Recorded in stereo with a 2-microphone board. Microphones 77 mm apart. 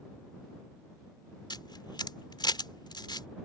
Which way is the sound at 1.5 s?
75° left (ahead or behind).